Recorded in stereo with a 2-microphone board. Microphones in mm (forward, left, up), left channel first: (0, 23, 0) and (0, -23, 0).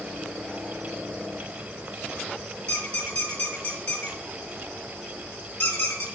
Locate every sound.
2.7 s a squeak: 30° left (ahead or behind), 1.8 m